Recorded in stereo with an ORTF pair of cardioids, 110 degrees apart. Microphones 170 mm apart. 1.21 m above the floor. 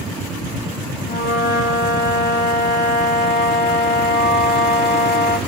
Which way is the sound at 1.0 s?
60° left.